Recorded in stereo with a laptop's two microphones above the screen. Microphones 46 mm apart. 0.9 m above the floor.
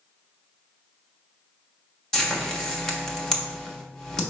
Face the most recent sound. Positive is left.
turn(degrees=15)  # may be behind; listen again after turning